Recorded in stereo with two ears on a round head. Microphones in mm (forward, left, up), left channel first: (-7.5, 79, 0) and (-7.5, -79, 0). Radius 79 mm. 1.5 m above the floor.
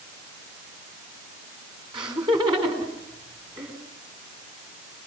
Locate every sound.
1.9 s laughter: 25° right (ahead or behind), 4.5 m